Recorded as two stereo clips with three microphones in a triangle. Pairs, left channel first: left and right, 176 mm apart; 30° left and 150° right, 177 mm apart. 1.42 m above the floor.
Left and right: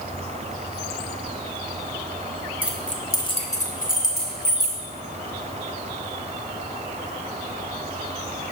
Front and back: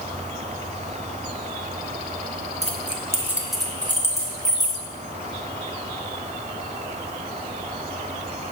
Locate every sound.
2.6 s keys jangling: 165° right, 0.6 m; by 4.8 s 95° left, 1.3 m